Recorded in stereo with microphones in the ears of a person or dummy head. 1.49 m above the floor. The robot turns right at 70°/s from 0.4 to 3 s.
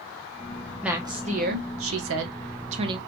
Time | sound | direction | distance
0.8 | a woman speaking | 175° right | 0.8 m